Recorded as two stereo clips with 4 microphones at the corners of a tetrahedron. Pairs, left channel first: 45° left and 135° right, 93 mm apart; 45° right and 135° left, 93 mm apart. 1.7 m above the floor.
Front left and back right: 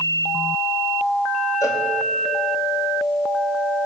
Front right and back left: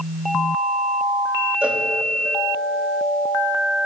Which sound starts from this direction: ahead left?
A cowbell, at 1.6 s.